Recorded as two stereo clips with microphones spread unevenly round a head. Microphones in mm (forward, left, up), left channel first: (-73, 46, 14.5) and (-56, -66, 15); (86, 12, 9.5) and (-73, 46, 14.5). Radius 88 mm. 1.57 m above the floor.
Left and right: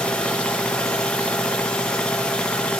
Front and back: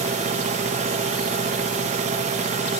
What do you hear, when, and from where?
0.0 s a machine running: 175° left, 0.9 m